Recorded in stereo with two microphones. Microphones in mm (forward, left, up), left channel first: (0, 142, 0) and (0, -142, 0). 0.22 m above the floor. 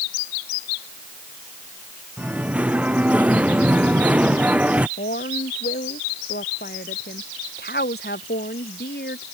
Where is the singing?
5° right (ahead or behind).